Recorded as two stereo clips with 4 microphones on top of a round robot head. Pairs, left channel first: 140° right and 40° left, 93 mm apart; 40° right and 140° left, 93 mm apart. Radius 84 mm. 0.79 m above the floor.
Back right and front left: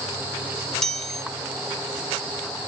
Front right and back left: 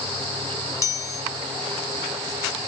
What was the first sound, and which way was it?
A chime, 60° right.